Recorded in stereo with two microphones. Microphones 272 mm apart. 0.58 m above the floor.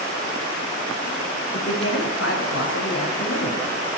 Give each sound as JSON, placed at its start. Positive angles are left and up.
{"t": 1.5, "sound": "a man speaking", "side_deg": 65, "distance_m": 6.0}